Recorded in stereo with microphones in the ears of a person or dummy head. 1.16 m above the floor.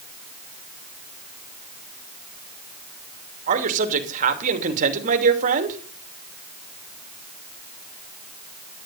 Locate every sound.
3.5 s a man speaking: 40° right (ahead or behind), 2.5 m